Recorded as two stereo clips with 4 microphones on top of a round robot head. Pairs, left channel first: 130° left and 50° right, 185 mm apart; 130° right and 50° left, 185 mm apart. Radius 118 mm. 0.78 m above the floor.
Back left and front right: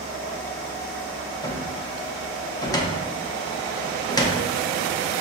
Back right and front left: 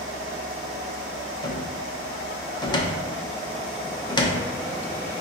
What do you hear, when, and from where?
1.4 s a cupboard door: 175° right, 0.6 m